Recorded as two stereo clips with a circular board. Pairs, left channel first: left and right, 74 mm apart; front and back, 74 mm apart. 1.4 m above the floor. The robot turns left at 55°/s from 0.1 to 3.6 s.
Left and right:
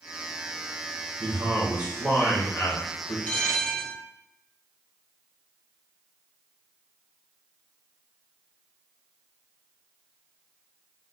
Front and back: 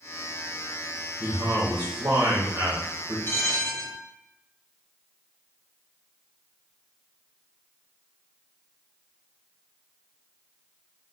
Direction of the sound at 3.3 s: 30° left.